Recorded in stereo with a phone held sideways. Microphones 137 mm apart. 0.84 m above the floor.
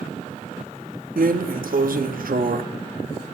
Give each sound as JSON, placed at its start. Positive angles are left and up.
{"t": 1.2, "sound": "a drawer", "side_deg": -75, "distance_m": 0.6}